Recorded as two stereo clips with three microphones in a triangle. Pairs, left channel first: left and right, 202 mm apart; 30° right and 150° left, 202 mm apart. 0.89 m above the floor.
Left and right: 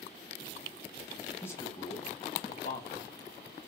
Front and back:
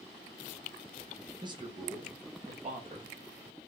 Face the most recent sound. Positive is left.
turn(degrees=105)